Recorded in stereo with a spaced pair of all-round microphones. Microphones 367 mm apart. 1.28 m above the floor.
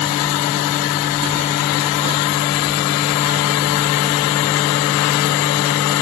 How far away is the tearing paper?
No tearing paper in this recording.